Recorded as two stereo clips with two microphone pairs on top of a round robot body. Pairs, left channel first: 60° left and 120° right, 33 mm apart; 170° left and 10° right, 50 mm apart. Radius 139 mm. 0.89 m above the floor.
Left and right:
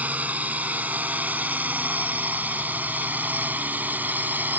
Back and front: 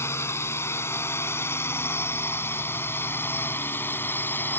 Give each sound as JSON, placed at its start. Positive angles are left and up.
{"t": 0.0, "sound": "a drone", "azimuth_deg": -160}